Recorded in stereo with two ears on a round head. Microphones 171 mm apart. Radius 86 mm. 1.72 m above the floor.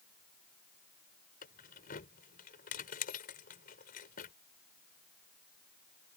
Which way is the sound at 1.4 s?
45° left (ahead or behind).